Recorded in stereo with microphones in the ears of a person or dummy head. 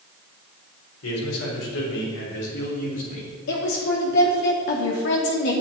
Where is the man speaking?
80° left, 4 m; by 3.3 s 35° left (ahead or behind), 3 m.